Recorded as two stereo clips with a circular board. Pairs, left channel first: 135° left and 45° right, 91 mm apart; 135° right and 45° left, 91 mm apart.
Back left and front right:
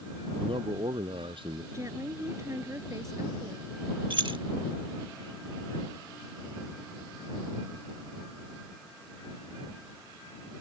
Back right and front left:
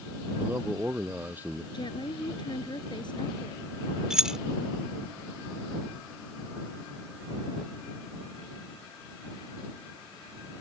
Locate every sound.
0.4 s a man speaking: 25° right
1.7 s a woman speaking: 100° right
4.1 s keys jangling: 35° right